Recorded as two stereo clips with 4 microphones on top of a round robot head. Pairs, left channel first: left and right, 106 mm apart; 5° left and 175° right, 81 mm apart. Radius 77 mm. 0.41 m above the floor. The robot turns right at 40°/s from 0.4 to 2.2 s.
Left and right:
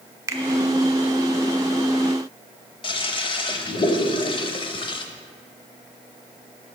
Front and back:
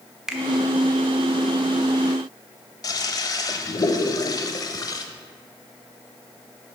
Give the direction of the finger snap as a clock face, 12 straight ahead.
3 o'clock.